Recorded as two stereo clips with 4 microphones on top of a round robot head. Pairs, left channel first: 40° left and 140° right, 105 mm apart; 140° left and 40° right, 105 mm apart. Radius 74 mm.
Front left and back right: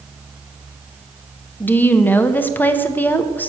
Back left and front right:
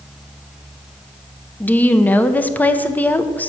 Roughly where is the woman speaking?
Left.